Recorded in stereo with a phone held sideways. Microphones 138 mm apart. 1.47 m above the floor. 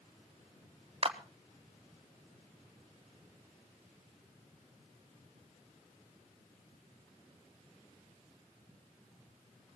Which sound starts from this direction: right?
A clap, at 1.0 s.